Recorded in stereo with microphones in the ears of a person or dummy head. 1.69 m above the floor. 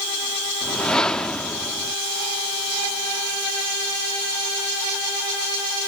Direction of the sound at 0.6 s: 5° left (ahead or behind).